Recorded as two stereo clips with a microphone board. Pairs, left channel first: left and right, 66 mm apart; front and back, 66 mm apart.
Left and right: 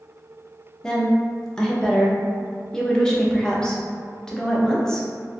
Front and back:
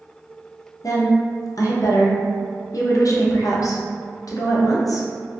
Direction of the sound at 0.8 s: 10° left.